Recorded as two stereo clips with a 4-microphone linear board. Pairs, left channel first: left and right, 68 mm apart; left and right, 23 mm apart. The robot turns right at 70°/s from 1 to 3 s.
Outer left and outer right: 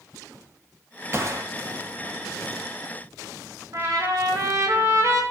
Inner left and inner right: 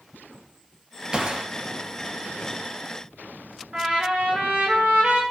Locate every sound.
1.1 s a gunshot: 40° right (ahead or behind), 1.6 m; by 1.5 s 60° right (ahead or behind), 1.6 m
3.7 s a trumpet: 60° right (ahead or behind), 5.5 m